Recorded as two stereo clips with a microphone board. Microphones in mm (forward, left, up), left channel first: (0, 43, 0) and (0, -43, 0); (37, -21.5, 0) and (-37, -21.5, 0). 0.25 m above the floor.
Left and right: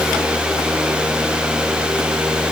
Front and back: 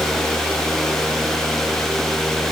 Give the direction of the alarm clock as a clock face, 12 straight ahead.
No alarm clock in this recording.